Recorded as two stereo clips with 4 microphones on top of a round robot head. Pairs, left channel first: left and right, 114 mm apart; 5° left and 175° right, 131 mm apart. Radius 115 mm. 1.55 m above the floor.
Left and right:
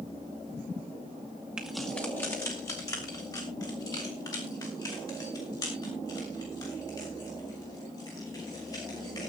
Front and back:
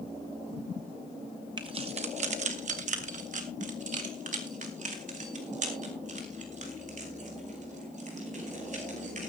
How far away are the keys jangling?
About 0.6 m.